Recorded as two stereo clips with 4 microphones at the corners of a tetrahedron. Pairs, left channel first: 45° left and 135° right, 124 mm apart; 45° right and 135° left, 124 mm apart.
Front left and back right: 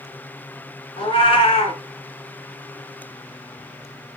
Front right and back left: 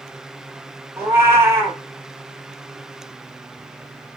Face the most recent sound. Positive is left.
turn(degrees=70)